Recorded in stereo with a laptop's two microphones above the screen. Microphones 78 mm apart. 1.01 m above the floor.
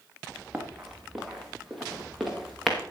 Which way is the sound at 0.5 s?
5° right (ahead or behind).